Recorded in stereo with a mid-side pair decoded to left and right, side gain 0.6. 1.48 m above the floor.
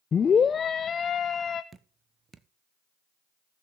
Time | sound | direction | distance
0.1 | a scream | 35° left | 0.5 m
1.7 | dripping | 30° right | 0.8 m